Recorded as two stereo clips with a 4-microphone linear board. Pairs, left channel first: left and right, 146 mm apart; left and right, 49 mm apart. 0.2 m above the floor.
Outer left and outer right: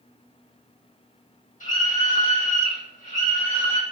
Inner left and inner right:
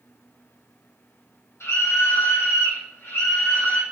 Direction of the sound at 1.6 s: 65° left (ahead or behind).